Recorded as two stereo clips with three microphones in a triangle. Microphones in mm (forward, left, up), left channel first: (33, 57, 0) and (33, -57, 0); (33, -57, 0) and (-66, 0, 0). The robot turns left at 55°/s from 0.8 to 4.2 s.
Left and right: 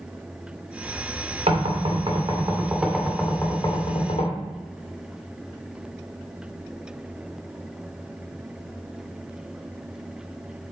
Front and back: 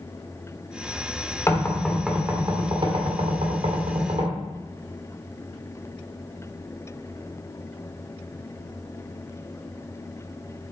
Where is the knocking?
95° right, 1.8 m; by 4.4 s 115° left, 1.8 m.